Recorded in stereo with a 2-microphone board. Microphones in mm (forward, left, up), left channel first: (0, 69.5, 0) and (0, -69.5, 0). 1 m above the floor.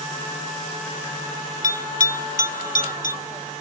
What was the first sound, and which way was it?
A bell, 70° left (ahead or behind).